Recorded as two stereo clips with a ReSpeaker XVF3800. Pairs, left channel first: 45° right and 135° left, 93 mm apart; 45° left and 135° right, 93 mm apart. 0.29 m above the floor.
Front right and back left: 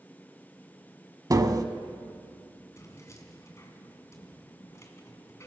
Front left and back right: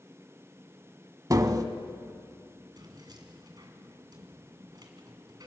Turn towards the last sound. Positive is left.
turn(degrees=-100)